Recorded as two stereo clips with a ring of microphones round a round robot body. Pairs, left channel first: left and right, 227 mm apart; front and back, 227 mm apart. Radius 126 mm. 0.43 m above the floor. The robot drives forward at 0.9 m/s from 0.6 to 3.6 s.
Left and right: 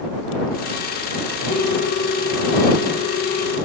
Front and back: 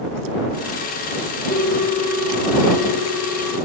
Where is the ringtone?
55° left, 5.5 m; by 3.6 s 75° left, 4.5 m.